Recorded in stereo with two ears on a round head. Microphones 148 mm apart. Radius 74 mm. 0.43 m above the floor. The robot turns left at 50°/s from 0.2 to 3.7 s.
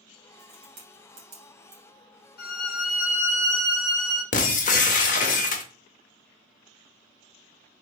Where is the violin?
95° left, 1.1 m; by 4.2 s 25° left, 1.1 m.